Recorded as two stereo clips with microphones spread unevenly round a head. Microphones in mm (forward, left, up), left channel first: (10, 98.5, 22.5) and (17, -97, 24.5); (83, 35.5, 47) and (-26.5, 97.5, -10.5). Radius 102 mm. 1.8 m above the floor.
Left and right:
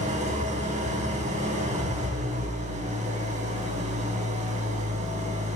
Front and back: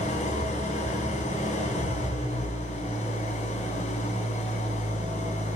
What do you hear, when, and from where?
0.0 s an engine running: 35° right, 4.5 m